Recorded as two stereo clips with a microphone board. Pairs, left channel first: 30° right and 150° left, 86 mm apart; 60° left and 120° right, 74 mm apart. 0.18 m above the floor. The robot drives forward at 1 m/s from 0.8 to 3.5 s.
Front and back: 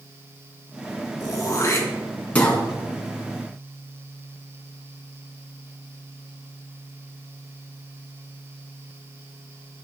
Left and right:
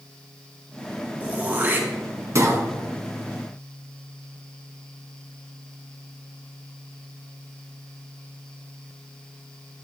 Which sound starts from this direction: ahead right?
Throat clearing, at 1.2 s.